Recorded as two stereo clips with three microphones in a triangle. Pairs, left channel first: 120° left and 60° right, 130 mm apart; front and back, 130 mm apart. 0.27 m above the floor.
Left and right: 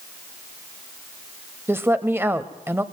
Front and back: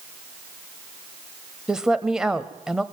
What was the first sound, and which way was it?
A woman speaking, 100° right.